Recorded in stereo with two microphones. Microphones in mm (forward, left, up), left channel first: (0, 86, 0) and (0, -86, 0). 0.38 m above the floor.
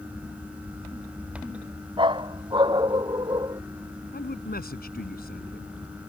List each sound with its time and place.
2.0 s a dog barking: 30° right (ahead or behind); by 3.6 s 25° right (ahead or behind)
4.1 s a man speaking: 65° left (ahead or behind)